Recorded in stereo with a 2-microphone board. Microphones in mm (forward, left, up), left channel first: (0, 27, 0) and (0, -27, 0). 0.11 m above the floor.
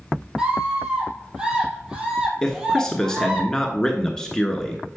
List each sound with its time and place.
0.4 s a scream: 15° right (ahead or behind), 3 m
2.4 s a man speaking: 10° left (ahead or behind), 1.1 m